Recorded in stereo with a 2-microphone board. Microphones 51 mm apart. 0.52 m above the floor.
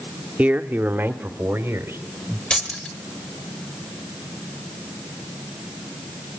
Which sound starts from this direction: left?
Keys jangling, at 2.5 s.